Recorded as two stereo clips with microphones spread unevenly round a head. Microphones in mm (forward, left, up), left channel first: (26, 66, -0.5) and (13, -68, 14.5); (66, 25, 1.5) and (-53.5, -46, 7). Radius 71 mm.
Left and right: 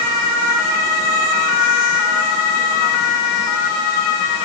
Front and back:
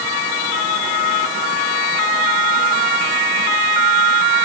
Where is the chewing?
No chewing in this recording.